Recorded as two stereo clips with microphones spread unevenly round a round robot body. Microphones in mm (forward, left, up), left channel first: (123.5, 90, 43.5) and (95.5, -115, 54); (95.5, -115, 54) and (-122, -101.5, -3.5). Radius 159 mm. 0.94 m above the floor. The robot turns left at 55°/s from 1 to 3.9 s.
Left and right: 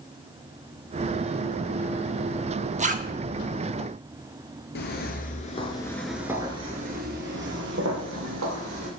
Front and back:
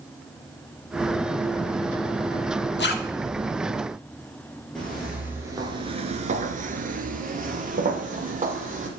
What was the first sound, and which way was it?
A zipper, 45° right.